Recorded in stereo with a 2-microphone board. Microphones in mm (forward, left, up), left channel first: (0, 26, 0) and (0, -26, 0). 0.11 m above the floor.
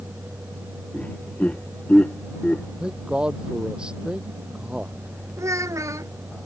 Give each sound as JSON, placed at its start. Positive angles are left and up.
{"t": 0.9, "sound": "laughter", "side_deg": 25}
{"t": 2.8, "sound": "a man speaking", "side_deg": -15}
{"t": 5.4, "sound": "a child speaking", "side_deg": -80}